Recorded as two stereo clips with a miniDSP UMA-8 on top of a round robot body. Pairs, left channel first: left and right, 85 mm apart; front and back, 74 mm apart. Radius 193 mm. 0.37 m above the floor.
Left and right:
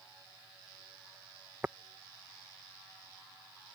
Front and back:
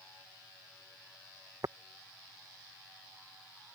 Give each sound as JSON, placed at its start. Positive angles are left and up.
{"t": 1.6, "sound": "tapping", "azimuth_deg": -155}